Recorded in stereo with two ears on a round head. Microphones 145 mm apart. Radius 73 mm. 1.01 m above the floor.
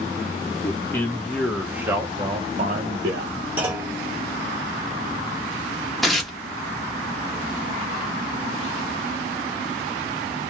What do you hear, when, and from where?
0.6 s a man speaking: 20° left (ahead or behind), 1.0 m; by 3.4 s 55° right (ahead or behind), 0.7 m
3.6 s a clunk: 10° right (ahead or behind), 1.1 m
6.0 s tearing paper: centre (ahead or behind), 0.7 m